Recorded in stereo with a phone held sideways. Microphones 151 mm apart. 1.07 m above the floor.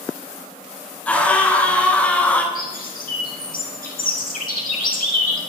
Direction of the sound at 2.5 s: 85° left.